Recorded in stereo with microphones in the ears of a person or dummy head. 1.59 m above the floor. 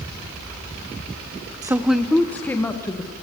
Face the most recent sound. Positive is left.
turn(degrees=15)  # may be behind; listen again after turning